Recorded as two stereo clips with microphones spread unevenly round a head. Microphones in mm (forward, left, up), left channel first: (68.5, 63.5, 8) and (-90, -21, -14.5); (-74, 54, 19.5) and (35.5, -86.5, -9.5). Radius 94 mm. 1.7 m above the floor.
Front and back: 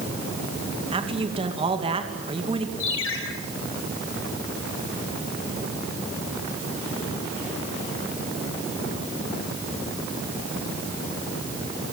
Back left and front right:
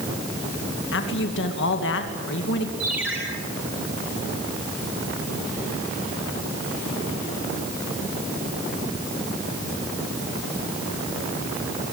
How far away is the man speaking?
About 2.5 m.